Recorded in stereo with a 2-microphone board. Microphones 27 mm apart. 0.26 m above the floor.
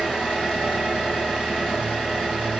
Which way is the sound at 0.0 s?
20° left (ahead or behind).